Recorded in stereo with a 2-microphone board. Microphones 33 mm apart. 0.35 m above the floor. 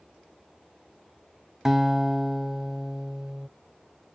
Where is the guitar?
10° right (ahead or behind), 0.7 m.